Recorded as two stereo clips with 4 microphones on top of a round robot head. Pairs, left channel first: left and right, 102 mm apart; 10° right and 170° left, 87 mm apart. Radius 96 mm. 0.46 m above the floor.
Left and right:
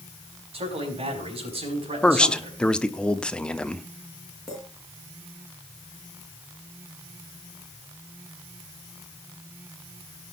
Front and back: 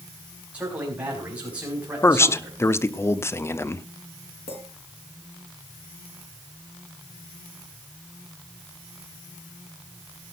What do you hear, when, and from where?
0.5 s a man speaking: 115° right, 5 m
2.0 s a man speaking: 20° left, 0.9 m
4.5 s a clink: 5° left, 5.5 m